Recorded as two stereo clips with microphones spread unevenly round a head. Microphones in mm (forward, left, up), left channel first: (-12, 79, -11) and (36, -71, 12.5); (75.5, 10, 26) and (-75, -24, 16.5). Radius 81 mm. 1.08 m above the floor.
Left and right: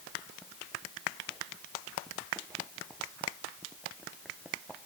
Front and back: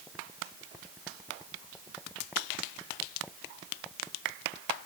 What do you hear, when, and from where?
Only background noise.